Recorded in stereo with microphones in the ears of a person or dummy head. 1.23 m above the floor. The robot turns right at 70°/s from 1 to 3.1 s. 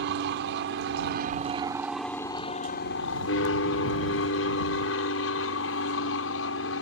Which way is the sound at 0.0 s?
65° right.